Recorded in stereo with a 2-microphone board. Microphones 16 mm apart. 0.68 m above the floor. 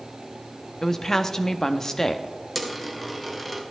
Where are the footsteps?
No footsteps in this recording.